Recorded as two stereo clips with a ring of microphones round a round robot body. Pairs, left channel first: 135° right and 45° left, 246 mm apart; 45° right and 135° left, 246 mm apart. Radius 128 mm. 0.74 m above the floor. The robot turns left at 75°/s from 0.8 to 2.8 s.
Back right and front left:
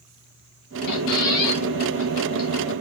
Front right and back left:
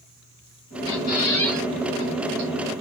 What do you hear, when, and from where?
0.9 s a squeak: 85° right, 4 m; by 2.5 s 150° left, 4 m